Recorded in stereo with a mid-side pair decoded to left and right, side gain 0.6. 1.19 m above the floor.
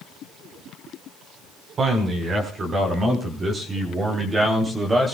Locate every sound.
1.8 s a man speaking: 40° right, 4.5 m; by 5.1 s 20° right, 3 m